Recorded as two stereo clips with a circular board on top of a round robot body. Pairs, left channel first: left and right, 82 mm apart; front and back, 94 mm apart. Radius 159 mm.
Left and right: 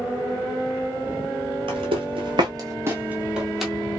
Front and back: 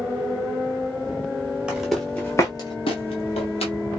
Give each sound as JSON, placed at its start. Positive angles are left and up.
{"t": 1.7, "sound": "footsteps", "azimuth_deg": -100, "distance_m": 1.0}